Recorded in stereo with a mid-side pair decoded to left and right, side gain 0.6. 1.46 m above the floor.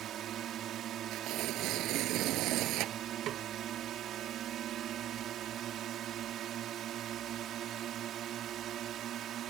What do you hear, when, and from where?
0.0 s a drone: 55° right
1.1 s tearing paper: 65° right
3.3 s a snare drum: 55° right